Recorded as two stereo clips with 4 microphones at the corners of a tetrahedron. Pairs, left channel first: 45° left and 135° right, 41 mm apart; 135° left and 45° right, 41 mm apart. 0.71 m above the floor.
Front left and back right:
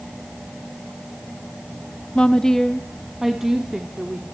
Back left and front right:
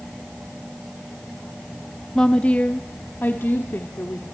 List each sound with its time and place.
2.1 s a woman speaking: 80° left, 0.8 m; by 4.2 s 155° left, 2.0 m